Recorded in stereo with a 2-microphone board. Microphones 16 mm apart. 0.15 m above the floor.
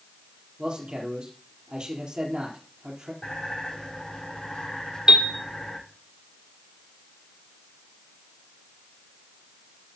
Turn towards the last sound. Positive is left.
turn(degrees=-80)